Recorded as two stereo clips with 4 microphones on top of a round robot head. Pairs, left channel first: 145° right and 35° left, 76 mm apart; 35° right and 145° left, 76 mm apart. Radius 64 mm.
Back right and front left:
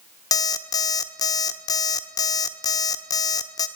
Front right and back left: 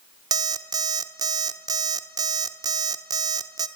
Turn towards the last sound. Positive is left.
turn(degrees=180)